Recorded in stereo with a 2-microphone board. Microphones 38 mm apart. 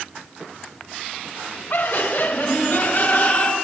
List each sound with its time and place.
1.7 s laughter: 55° left (ahead or behind), 2.5 m; by 3.5 s 45° left (ahead or behind), 3.5 m